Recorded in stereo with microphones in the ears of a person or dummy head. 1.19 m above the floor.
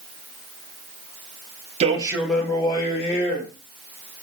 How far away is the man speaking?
About 0.6 m.